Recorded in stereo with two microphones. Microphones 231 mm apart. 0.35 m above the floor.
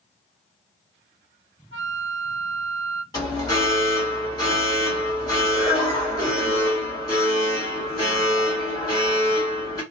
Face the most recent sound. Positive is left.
turn(degrees=20)  # may be behind; listen again after turning